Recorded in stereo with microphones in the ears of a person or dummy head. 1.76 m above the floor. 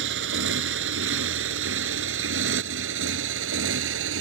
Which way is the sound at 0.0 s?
70° right (ahead or behind).